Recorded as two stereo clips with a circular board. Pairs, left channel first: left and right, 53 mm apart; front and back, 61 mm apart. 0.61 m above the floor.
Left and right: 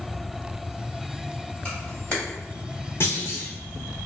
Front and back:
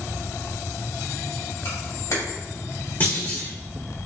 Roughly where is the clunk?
Ahead left.